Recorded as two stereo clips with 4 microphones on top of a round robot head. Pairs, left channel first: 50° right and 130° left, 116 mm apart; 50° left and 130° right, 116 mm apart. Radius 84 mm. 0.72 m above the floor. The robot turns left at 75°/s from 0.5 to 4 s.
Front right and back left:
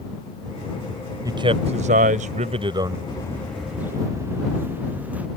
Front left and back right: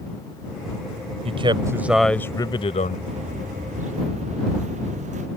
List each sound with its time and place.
1.2 s a man speaking: 165° right; by 3.0 s 65° left
3.1 s footsteps: 105° right; by 5.3 s 150° right